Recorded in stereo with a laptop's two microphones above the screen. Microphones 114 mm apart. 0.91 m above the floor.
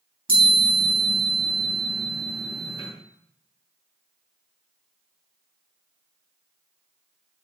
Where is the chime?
50° right (ahead or behind), 3 m.